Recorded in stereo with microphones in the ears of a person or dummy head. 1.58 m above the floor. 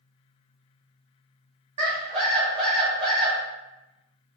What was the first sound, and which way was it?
A scream, 40° right (ahead or behind).